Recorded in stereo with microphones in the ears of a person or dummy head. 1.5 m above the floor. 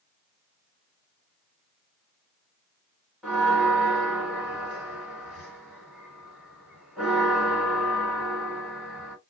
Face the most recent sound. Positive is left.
turn(degrees=0)  # may be behind; listen again after turning